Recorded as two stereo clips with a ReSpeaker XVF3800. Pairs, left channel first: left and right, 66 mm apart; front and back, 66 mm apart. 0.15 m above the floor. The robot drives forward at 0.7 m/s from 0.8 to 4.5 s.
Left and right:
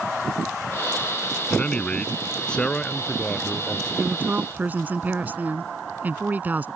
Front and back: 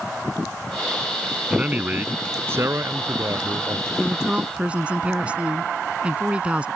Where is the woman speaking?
105° right; by 6.7 s 125° right.